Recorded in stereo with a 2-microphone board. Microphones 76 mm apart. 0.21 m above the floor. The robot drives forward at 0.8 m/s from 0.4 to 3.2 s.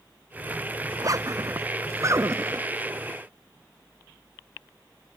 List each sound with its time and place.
0.9 s a zipper: 50° right (ahead or behind); by 2.7 s 35° right (ahead or behind)